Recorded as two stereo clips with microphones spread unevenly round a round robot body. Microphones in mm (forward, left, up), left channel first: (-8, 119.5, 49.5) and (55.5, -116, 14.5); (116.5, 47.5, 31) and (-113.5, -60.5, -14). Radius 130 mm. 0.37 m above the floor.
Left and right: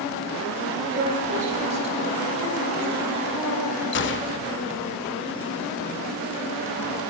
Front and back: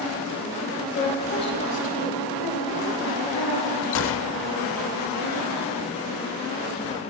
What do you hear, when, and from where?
0.9 s a woman speaking: 40° right, 2 m; by 3.7 s 5° left, 5 m
3.9 s a gunshot: 65° left, 0.5 m